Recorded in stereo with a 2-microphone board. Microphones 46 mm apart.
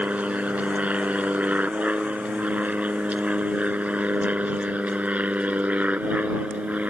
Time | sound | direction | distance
0.0 | an aircraft | 30° right (ahead or behind) | ?